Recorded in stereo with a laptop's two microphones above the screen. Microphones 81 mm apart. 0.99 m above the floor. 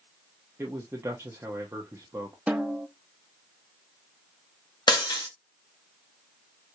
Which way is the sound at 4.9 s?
70° left (ahead or behind).